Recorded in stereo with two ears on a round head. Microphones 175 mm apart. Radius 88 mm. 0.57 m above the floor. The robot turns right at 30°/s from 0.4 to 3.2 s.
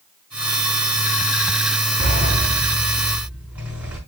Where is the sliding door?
45° right, 5 m; by 4.0 s 5° right, 5 m.